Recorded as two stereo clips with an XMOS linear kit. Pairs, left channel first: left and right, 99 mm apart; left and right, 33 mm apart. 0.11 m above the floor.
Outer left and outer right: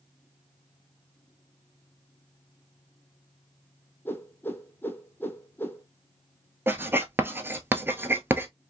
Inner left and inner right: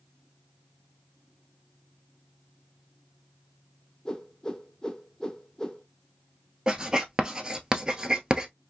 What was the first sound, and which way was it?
A whoosh, 20° left (ahead or behind).